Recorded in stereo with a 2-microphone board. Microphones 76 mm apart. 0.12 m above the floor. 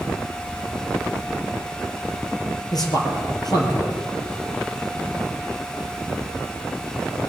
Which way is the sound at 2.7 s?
60° left (ahead or behind).